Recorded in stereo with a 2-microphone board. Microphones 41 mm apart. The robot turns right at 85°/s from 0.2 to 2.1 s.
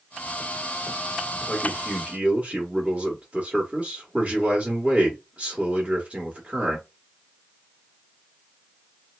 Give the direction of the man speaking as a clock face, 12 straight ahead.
5 o'clock.